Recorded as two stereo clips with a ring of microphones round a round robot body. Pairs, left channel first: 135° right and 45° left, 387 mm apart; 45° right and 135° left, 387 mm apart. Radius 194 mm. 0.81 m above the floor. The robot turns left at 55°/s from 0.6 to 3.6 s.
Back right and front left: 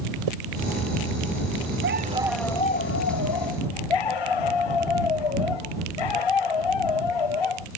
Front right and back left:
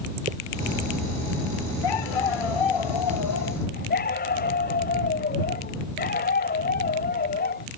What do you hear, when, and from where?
0.3 s a zipper: 65° left
1.8 s a dog barking: 15° right; by 7.7 s 115° right